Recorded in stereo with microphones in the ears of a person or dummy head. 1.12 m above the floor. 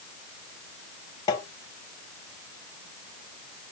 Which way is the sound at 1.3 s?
20° left (ahead or behind).